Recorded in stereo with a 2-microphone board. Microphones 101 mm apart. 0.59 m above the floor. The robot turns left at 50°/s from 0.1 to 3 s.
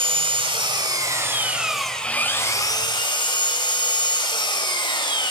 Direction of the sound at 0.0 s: 95° right.